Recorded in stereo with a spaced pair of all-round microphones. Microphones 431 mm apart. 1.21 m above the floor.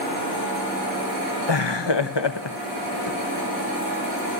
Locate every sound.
1.5 s laughter: 75° left (ahead or behind), 1.0 m